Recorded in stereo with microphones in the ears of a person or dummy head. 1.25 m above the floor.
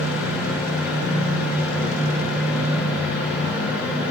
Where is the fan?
5° right (ahead or behind), 3 m.